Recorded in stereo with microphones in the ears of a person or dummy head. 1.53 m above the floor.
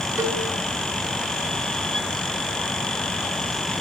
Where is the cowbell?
20° right (ahead or behind), 3 m.